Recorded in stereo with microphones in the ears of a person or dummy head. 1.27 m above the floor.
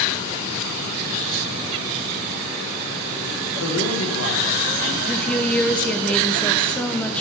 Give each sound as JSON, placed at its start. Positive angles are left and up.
{"t": 3.6, "sound": "a man speaking", "side_deg": 75, "distance_m": 2.5}
{"t": 5.0, "sound": "a woman speaking", "side_deg": 5, "distance_m": 0.9}